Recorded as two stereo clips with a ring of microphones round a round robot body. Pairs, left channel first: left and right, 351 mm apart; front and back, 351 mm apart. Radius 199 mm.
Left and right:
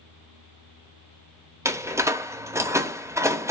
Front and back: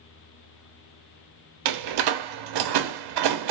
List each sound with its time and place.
1.6 s a door slam: 175° right, 0.8 m